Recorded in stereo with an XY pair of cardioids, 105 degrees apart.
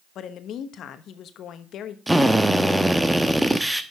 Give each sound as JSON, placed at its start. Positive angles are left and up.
{"t": 0.1, "sound": "a woman speaking", "azimuth_deg": 70, "distance_m": 1.1}
{"t": 2.1, "sound": "a drill", "azimuth_deg": -10, "distance_m": 1.0}